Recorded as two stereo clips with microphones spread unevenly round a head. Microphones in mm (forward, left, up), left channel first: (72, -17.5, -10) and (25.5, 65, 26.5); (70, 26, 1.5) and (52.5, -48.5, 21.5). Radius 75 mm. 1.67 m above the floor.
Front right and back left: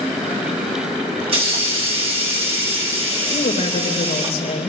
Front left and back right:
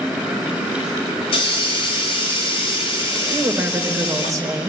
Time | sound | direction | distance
1.2 | a hiss | 105° left | 3.5 m
3.3 | a woman speaking | 55° right | 3 m